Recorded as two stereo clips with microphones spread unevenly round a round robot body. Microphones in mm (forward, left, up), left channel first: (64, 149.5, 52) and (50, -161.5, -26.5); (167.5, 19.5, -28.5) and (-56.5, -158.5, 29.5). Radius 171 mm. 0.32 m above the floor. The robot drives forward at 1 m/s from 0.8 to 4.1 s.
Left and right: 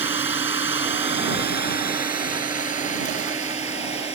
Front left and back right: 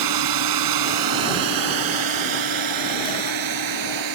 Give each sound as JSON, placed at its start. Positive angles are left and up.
{"t": 0.0, "sound": "a drone", "azimuth_deg": -170}